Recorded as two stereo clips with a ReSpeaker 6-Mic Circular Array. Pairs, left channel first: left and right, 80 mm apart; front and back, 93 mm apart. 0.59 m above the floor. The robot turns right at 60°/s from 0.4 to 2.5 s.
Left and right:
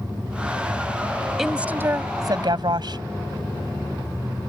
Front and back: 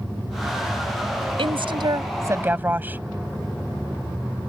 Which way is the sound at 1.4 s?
Straight behind.